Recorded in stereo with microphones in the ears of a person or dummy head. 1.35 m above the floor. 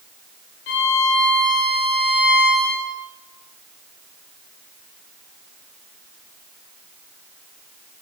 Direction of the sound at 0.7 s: 55° left (ahead or behind).